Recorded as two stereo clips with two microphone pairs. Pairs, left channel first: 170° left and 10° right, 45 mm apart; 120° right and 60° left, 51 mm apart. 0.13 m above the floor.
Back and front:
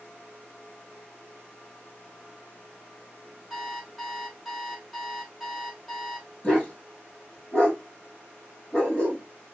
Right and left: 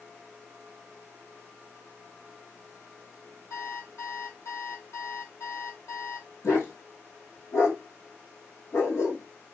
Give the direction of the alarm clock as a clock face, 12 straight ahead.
4 o'clock.